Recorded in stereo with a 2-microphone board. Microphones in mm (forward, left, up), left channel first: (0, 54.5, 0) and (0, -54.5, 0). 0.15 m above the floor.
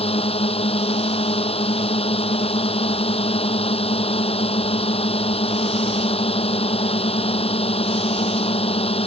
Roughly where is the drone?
Left.